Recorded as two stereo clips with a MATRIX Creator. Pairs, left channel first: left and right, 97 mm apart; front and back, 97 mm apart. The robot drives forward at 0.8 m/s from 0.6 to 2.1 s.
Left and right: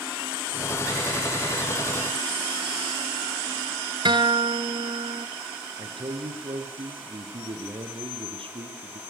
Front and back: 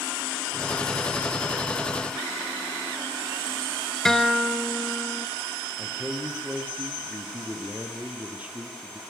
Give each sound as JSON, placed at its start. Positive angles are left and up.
{"t": 4.0, "sound": "a guitar", "azimuth_deg": -85, "distance_m": 1.4}
{"t": 5.8, "sound": "a man speaking", "azimuth_deg": -105, "distance_m": 4.5}